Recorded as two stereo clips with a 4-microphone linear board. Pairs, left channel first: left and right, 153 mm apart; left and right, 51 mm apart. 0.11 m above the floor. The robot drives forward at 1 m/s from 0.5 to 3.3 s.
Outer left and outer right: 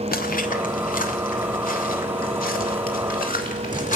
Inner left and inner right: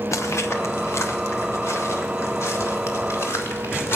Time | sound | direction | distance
0.1 | footsteps | 80° left | 1.1 m